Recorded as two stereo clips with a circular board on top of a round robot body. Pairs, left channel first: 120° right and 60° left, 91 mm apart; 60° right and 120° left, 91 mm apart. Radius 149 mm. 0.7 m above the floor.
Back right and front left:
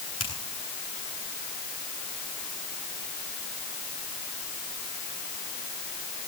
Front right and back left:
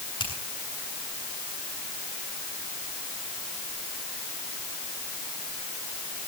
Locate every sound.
0.2 s a finger snap: 95° right, 9.5 m